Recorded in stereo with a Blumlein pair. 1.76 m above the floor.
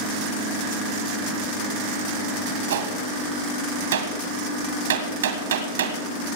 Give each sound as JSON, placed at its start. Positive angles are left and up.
{"t": 2.7, "sound": "a gunshot", "azimuth_deg": -65, "distance_m": 1.6}